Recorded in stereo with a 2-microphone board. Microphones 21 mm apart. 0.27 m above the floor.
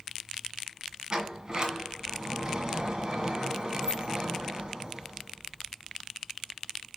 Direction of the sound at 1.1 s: 35° right (ahead or behind).